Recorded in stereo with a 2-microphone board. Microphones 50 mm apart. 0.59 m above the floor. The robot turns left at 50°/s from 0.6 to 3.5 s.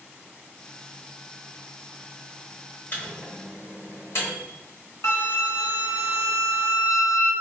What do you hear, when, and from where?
2.9 s a microwave: 50° left (ahead or behind), 1.2 m; by 4.4 s 75° left (ahead or behind), 1.2 m
5.0 s a flute: 80° left, 0.7 m